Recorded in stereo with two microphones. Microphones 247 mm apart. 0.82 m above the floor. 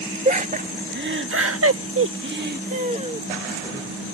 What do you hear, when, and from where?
0.2 s laughter: 30° right (ahead or behind); by 3.9 s 15° right (ahead or behind)